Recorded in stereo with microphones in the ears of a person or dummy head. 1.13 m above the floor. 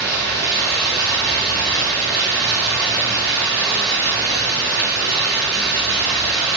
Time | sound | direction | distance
0.0 | running water | 20° right (ahead or behind) | 1.5 m